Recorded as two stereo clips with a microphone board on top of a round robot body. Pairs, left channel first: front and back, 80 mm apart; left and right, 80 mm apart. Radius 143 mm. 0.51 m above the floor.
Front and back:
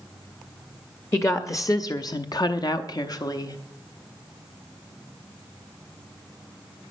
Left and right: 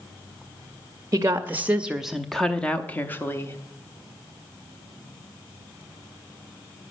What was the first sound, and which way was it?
A woman speaking, 45° right.